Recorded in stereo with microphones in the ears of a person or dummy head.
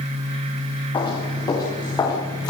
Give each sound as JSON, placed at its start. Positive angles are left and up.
{"t": 0.9, "sound": "footsteps", "side_deg": 35, "distance_m": 8.0}